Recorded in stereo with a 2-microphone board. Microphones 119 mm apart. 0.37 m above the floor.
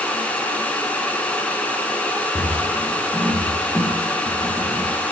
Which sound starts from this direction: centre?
Footsteps, at 2.4 s.